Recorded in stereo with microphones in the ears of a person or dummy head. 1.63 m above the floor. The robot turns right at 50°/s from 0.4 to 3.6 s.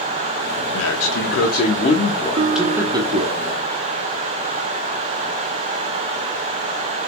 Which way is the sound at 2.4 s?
140° right.